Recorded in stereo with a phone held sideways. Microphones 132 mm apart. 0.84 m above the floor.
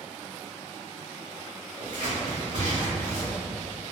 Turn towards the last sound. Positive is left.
turn(degrees=-70)  # may be behind; listen again after turning